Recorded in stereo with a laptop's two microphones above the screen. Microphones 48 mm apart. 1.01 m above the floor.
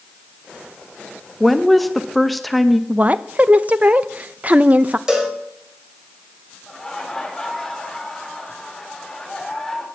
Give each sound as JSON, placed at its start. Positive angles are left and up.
{"t": 1.4, "sound": "a woman speaking", "side_deg": 0, "distance_m": 0.6}
{"t": 2.9, "sound": "a woman speaking", "side_deg": -30, "distance_m": 0.5}
{"t": 5.1, "sound": "a cowbell", "side_deg": -15, "distance_m": 4.0}
{"t": 6.7, "sound": "laughter", "side_deg": 10, "distance_m": 4.0}